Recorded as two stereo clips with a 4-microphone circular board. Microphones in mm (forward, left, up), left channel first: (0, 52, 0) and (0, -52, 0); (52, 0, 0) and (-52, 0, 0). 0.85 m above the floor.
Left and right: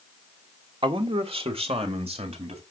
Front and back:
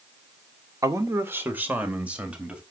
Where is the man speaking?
120° right, 1.6 m; by 2.6 s 100° right, 4 m.